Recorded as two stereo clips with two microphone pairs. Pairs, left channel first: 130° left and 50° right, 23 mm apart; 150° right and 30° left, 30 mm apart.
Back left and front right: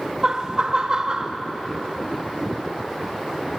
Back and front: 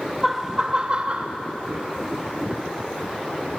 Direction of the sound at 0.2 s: 40° right.